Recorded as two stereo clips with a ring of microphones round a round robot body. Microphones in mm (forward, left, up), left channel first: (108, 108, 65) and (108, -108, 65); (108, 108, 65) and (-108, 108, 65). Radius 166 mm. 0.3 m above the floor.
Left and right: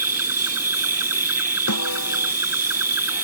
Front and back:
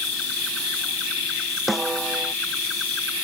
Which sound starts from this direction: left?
A snare drum, at 1.7 s.